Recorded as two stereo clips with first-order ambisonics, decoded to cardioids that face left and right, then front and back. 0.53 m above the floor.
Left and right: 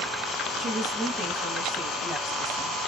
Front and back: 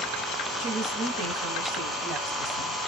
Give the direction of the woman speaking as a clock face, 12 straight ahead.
5 o'clock.